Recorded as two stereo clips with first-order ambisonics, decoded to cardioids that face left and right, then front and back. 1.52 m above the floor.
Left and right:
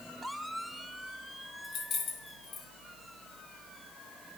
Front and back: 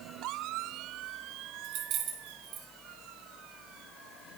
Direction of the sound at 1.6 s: 145° left.